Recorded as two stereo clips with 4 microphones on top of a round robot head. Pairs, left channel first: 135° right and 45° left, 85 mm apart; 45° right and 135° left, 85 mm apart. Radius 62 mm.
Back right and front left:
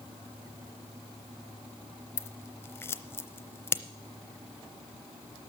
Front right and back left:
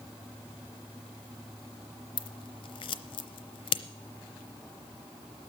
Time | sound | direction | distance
2.2 | scissors | 70° right | 0.7 m